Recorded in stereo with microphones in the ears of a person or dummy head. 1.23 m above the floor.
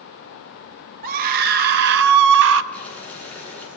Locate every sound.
1.0 s a scream: 45° right (ahead or behind), 1.7 m; by 2.6 s 75° right (ahead or behind), 1.0 m
2.7 s boiling: 10° left (ahead or behind), 9.5 m